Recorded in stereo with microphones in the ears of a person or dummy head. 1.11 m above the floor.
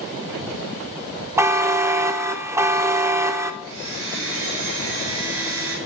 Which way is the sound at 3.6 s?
85° right.